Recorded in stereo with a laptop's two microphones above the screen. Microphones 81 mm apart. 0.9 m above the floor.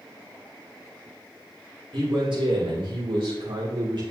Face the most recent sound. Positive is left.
turn(degrees=-65)  # may be behind; listen again after turning